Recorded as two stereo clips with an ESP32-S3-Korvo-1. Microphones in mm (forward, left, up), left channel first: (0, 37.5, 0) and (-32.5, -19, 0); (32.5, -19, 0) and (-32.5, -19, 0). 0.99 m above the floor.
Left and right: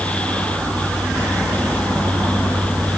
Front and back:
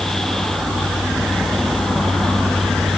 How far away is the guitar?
I don't hear a guitar.